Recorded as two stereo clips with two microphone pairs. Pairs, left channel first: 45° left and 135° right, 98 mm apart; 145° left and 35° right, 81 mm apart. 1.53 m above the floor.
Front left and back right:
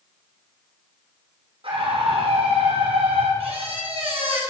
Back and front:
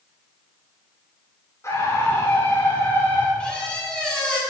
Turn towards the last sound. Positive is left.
turn(degrees=-135)